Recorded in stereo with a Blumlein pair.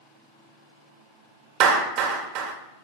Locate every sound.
1.6 s a clap: 40° right, 1.7 m